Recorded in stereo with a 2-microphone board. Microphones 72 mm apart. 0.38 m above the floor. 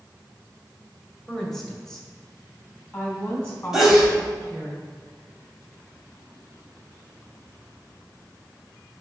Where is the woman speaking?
5° left (ahead or behind), 1.5 m; by 4.7 s 20° left (ahead or behind), 3.5 m.